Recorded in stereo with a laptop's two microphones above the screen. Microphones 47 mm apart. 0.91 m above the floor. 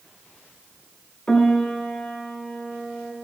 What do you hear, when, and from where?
1.3 s a piano: 20° left (ahead or behind), 1.0 m